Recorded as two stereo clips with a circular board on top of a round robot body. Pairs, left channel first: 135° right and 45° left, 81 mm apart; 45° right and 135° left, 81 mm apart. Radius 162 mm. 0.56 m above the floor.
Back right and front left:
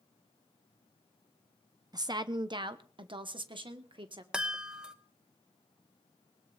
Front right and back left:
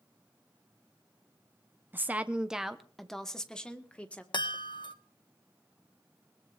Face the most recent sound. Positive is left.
turn(degrees=-35)